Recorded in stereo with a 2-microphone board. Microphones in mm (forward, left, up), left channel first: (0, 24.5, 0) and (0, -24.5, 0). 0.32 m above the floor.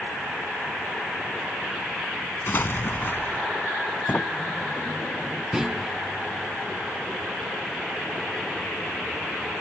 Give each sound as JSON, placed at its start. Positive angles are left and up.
{"t": 2.5, "sound": "an explosion", "side_deg": 50}
{"t": 4.1, "sound": "a sliding door", "side_deg": 40}
{"t": 5.5, "sound": "a clunk", "side_deg": -10}